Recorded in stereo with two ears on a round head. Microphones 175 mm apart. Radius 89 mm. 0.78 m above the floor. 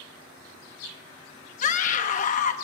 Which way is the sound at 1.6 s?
40° left (ahead or behind).